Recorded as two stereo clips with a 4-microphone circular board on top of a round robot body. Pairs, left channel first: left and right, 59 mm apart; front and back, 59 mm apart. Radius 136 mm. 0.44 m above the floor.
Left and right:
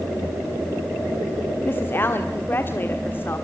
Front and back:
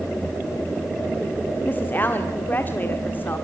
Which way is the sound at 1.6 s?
50° left.